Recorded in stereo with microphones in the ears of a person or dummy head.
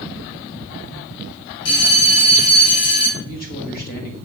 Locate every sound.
1.6 s a bell: 55° left (ahead or behind), 3 m
3.2 s a man speaking: 50° left (ahead or behind), 1.5 m